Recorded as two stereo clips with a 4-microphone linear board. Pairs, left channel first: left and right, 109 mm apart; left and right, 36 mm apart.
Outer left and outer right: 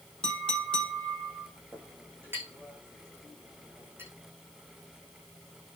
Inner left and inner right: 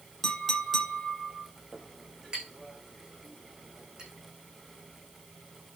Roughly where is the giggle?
I don't hear a giggle.